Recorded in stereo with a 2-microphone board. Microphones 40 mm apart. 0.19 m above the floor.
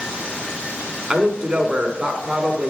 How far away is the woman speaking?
About 1.5 m.